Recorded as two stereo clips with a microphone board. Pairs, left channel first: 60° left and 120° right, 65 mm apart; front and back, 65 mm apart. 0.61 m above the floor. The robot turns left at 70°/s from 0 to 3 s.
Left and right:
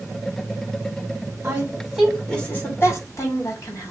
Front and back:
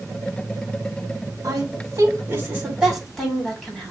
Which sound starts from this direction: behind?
A woman speaking, at 1.4 s.